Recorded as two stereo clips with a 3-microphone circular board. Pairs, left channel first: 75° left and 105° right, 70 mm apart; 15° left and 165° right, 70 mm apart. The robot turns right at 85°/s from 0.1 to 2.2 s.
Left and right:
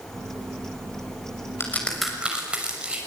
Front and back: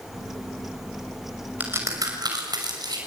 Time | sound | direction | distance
1.6 | a crack | 125° left | 6.5 m